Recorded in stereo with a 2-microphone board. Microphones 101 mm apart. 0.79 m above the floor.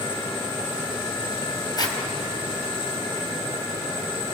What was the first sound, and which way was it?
A zipper, 45° left (ahead or behind).